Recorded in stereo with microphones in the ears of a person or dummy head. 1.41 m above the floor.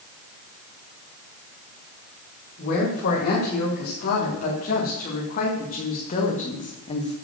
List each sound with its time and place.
2.6 s a woman speaking: 45° left (ahead or behind), 4 m; by 7.2 s 25° left (ahead or behind), 1.3 m